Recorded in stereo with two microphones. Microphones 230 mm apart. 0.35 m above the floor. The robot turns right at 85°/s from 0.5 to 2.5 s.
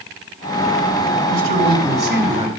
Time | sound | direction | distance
1.3 | a man speaking | 130° right | 1.9 m